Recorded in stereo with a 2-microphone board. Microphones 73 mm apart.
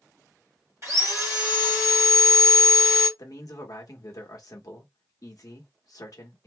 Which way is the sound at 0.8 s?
45° right (ahead or behind).